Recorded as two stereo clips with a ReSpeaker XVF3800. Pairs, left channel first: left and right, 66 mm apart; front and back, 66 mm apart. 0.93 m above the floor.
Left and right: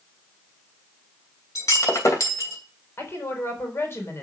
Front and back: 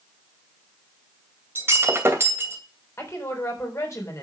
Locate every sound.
1.6 s breaking glass: 125° left, 2.5 m
3.0 s a woman speaking: 40° left, 4 m